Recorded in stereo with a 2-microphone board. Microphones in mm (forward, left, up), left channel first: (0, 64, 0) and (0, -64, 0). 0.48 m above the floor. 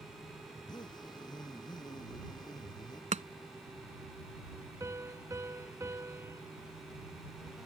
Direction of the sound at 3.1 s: 65° right (ahead or behind).